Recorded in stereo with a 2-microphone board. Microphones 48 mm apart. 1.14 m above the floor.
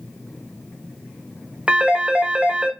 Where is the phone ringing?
25° right (ahead or behind), 0.6 m.